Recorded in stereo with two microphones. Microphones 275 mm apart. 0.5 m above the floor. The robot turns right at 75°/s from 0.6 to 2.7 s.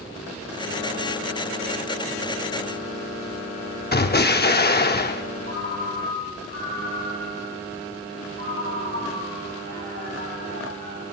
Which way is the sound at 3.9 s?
35° left (ahead or behind).